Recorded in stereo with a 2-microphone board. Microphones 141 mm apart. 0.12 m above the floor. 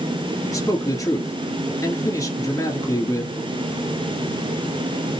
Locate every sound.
0.4 s a man speaking: 25° left (ahead or behind), 1.6 m